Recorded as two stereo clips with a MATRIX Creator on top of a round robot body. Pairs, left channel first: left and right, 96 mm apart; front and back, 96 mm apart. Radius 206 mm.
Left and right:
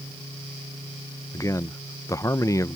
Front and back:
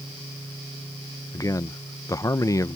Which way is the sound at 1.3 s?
45° left.